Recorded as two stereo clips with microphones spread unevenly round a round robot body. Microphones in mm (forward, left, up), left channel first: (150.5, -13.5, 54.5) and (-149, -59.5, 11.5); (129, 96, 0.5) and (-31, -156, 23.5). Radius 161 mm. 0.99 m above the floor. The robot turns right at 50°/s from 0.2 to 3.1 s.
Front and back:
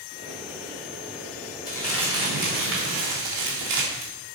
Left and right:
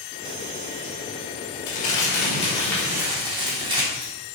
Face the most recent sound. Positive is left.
turn(degrees=160)